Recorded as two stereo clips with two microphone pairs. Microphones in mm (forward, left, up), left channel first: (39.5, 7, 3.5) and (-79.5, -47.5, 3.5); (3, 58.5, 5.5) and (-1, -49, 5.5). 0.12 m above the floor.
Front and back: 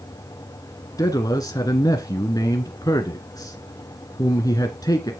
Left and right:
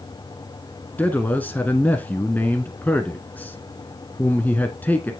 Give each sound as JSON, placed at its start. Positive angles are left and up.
{"t": 1.0, "sound": "a man speaking", "azimuth_deg": 35, "distance_m": 1.2}